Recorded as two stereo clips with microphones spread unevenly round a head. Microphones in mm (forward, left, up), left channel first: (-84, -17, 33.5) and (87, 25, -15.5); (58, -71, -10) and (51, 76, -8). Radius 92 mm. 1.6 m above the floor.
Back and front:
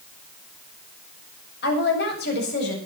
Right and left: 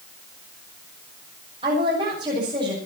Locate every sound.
1.6 s a woman speaking: 160° left, 8 m